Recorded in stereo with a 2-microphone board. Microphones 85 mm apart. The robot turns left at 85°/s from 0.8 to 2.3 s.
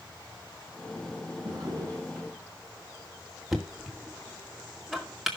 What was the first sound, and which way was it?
A drawer, 110° right.